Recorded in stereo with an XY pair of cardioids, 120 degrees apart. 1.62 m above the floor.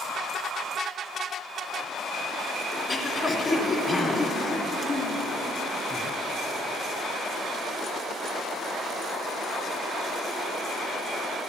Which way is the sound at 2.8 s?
20° left.